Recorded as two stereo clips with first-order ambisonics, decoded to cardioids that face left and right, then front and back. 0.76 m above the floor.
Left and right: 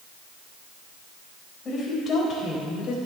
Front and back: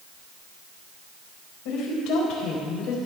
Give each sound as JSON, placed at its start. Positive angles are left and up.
{"t": 1.6, "sound": "a woman speaking", "azimuth_deg": 15, "distance_m": 4.0}